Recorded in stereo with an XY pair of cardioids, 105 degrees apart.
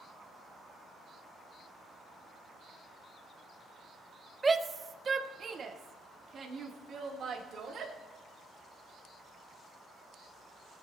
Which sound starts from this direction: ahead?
A shout, at 4.4 s.